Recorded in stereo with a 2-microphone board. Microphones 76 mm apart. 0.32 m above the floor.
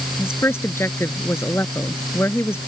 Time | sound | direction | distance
0.2 | a woman speaking | 30° left (ahead or behind) | ?